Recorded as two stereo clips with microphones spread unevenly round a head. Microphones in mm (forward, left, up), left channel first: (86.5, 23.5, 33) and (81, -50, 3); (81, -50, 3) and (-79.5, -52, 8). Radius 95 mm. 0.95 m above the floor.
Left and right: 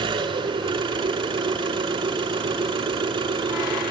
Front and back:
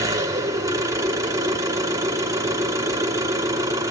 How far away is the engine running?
About 6 m.